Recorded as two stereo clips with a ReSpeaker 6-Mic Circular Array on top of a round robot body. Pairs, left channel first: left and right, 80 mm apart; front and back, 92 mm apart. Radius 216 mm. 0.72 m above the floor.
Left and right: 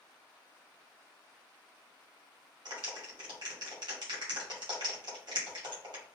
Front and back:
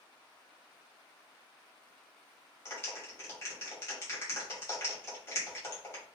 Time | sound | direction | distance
2.6 | a clap | 60° right | 2.5 m